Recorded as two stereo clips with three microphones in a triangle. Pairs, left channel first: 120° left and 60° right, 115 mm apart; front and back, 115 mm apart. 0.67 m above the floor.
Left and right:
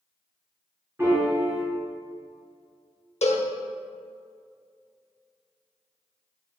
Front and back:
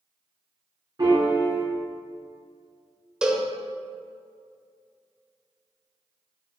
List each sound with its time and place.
1.0 s a piano: 130° right, 2.5 m
3.2 s a cowbell: 100° left, 0.7 m